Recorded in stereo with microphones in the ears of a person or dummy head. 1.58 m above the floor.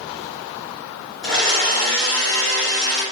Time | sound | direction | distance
1.2 | a blender | 20° left (ahead or behind) | 2.0 m